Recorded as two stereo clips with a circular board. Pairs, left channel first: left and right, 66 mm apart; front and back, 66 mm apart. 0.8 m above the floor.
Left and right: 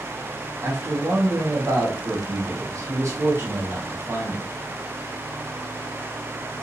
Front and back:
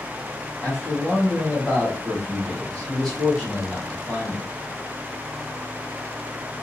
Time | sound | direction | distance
0.6 | a man speaking | 75° right | 1.5 m